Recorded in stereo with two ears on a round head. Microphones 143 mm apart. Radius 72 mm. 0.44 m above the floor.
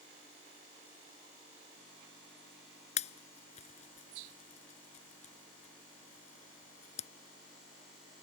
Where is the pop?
45° left (ahead or behind).